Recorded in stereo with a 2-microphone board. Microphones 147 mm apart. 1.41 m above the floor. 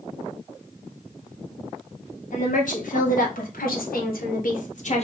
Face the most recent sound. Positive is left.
turn(degrees=50)  # may be behind; listen again after turning